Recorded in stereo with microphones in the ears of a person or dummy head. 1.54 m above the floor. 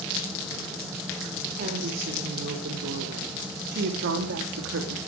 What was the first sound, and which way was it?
A woman speaking, 55° right (ahead or behind).